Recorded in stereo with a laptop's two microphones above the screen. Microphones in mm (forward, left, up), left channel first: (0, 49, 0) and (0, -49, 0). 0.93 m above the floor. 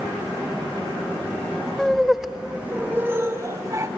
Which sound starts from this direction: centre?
Laughter, at 1.8 s.